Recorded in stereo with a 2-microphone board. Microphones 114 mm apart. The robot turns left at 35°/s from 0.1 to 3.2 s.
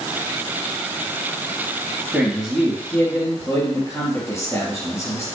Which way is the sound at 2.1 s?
170° right.